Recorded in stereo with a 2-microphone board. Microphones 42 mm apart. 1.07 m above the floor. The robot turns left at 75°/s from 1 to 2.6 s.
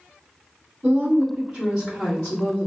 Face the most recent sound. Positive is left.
turn(degrees=125)